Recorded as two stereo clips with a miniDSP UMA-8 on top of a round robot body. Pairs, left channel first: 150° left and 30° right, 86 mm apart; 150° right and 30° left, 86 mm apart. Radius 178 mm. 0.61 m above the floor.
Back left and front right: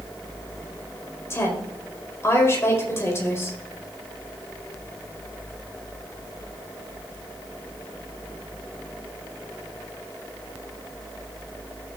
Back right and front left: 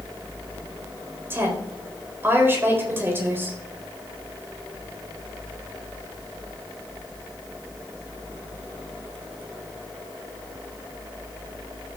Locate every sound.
1.3 s a woman speaking: 90° left, 4 m